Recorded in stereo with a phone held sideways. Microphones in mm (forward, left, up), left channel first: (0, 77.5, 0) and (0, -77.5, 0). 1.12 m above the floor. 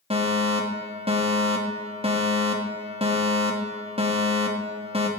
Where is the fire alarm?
40° right (ahead or behind), 3 m.